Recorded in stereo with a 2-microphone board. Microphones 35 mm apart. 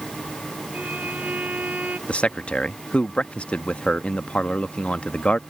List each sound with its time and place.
0.7 s a violin: 50° right (ahead or behind)
2.1 s a man speaking: 35° left (ahead or behind)